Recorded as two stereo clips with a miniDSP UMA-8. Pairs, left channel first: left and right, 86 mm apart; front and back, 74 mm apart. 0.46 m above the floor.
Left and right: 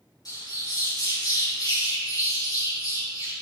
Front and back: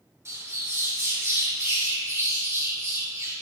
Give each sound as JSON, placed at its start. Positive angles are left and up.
{"t": 0.2, "sound": "a bird", "azimuth_deg": 130, "distance_m": 2.5}